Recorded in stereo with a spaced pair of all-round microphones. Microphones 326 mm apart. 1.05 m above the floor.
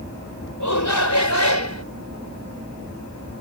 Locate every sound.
0.6 s a shout: 65° left (ahead or behind); by 1.9 s 55° left (ahead or behind)